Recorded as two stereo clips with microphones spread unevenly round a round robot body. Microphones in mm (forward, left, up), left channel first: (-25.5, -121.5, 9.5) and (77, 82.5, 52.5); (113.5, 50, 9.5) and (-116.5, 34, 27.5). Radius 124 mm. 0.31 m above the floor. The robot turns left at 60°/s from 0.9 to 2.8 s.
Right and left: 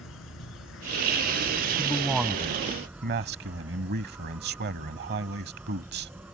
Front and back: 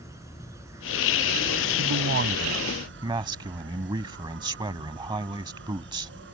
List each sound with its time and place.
0.0 s an insect: 95° right; by 6.3 s 150° left
1.8 s a man speaking: 175° left; by 6.1 s 115° left